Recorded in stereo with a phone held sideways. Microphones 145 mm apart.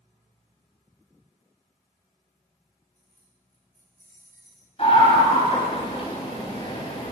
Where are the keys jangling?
15° left (ahead or behind), 3 m; by 4.7 s 25° left (ahead or behind), 1.6 m.